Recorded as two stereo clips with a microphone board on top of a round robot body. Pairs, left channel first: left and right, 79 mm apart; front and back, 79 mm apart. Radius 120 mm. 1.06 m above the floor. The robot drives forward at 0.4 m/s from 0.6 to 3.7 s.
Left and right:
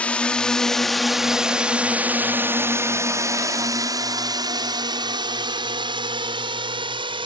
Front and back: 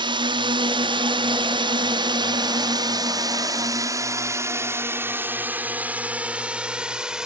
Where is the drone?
165° left; by 7.3 s 100° right.